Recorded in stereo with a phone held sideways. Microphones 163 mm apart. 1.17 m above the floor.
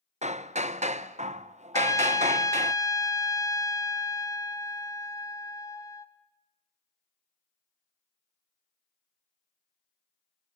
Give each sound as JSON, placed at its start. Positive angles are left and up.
{"t": 0.2, "sound": "hammering", "side_deg": -45, "distance_m": 0.7}
{"t": 1.7, "sound": "a trumpet", "side_deg": 20, "distance_m": 1.8}